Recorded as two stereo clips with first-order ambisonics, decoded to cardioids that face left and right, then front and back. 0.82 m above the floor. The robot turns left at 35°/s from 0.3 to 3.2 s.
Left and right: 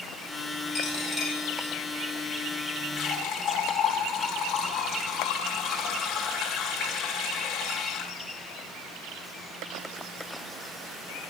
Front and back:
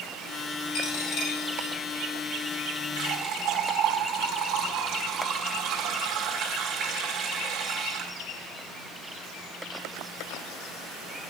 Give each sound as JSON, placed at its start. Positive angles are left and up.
{"t": 0.7, "sound": "a dropped coin", "azimuth_deg": 5, "distance_m": 3.0}
{"t": 3.0, "sound": "a running tap", "azimuth_deg": 150, "distance_m": 1.6}